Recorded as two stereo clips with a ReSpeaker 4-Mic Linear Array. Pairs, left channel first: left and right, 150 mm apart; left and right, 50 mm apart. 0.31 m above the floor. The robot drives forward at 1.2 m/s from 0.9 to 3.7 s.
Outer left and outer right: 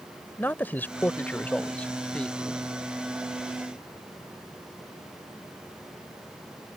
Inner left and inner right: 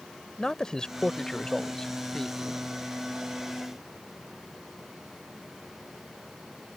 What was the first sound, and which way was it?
A man speaking, 15° left (ahead or behind).